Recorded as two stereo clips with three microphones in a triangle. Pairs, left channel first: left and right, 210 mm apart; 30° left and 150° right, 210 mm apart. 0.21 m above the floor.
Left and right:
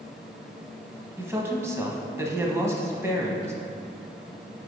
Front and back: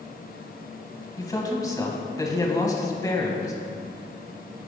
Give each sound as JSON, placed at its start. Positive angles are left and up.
{"t": 1.2, "sound": "a man speaking", "azimuth_deg": -25, "distance_m": 1.1}